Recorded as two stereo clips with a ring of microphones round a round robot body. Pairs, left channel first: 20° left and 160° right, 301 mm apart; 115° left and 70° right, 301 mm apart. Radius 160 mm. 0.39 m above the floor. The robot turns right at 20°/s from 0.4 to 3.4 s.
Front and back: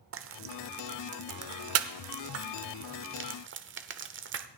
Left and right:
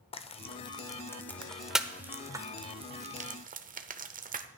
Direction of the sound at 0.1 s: Straight behind.